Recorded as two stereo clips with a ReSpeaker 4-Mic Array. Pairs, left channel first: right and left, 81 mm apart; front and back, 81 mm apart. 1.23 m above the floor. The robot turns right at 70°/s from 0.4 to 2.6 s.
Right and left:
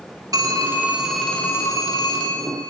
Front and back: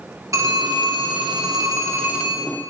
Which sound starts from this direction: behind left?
A phone ringing, at 0.3 s.